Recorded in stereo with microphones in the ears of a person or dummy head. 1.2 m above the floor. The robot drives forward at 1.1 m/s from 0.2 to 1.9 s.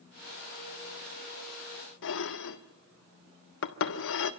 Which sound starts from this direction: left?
Dishes clattering, at 2.0 s.